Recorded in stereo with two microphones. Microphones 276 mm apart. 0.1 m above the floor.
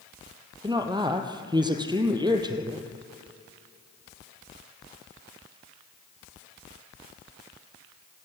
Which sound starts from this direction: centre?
A woman speaking, at 0.6 s.